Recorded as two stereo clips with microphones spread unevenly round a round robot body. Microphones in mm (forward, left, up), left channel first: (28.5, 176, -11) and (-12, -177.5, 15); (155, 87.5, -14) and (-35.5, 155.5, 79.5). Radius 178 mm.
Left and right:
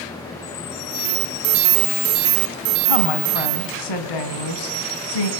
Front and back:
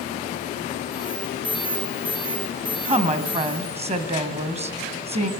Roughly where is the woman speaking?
Left.